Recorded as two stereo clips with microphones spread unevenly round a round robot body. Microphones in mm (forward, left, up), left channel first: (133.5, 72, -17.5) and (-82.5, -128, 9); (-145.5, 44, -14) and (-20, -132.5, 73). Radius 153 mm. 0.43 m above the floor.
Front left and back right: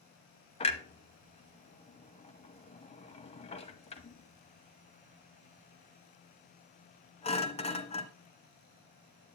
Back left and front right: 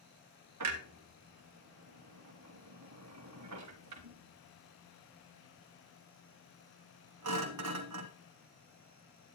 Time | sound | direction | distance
0.6 | a clunk | 25° right | 0.9 m